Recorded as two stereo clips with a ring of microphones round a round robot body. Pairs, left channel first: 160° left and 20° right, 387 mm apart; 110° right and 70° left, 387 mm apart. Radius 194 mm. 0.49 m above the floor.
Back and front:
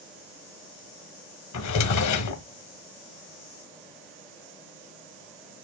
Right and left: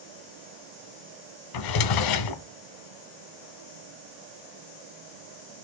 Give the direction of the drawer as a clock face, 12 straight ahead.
5 o'clock.